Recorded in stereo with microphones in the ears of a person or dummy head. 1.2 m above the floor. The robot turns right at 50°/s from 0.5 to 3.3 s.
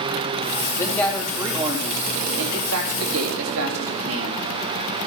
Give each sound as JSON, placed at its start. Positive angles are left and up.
{"t": 0.8, "sound": "a man speaking", "azimuth_deg": 165, "distance_m": 3.0}